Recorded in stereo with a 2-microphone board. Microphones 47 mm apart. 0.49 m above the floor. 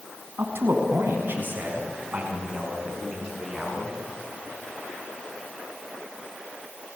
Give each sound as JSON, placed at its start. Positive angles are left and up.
{"t": 0.4, "sound": "a man speaking", "side_deg": -65, "distance_m": 5.0}